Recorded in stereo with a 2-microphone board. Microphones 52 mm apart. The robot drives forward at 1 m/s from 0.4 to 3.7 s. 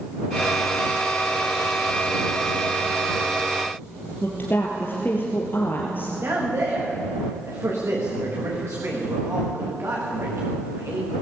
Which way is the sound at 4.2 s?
40° left (ahead or behind).